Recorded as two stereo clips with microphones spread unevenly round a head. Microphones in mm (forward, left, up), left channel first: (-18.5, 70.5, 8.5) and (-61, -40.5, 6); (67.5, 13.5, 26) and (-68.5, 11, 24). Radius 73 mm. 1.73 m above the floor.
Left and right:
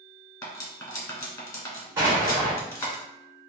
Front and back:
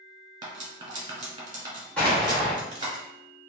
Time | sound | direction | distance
0.4 | cutlery clinking | 125° left | 1.3 m
2.0 | an explosion | 70° right | 1.2 m